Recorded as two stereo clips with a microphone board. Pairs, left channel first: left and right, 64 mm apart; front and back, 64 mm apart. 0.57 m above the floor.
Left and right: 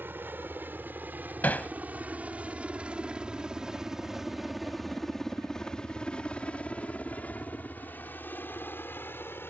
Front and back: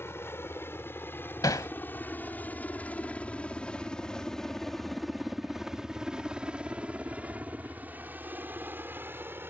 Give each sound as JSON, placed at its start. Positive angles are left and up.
{"t": 0.0, "sound": "a helicopter", "azimuth_deg": -40}
{"t": 1.4, "sound": "hammering", "azimuth_deg": 25}